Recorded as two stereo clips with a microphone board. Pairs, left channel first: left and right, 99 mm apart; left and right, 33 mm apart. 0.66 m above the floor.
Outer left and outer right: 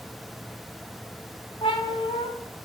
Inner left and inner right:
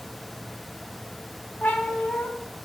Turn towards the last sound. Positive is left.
turn(degrees=70)  # may be behind; listen again after turning